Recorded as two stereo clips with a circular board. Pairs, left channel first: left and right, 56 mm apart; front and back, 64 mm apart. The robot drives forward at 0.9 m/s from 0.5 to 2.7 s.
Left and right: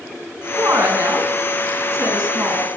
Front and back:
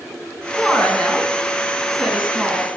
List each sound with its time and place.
0.6 s a woman speaking: 70° right, 3.5 m; by 2.7 s 105° right, 3.5 m